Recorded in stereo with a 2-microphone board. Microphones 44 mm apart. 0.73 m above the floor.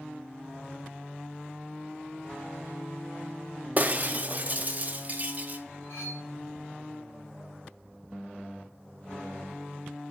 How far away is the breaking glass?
About 0.6 m.